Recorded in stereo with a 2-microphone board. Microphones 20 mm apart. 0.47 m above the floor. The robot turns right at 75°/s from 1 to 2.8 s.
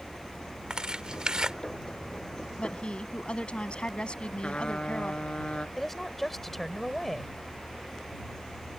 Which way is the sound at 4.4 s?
75° left (ahead or behind).